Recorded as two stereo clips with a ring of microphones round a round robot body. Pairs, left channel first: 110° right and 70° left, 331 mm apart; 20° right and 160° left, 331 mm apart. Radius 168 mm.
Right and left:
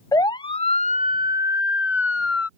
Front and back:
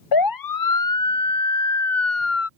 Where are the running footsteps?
No running footsteps in this recording.